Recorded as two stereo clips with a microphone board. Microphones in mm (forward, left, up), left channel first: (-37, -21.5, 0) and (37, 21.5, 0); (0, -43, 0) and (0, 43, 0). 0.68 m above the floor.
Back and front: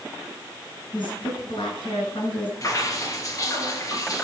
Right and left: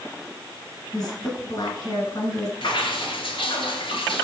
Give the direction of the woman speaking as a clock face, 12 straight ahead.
4 o'clock.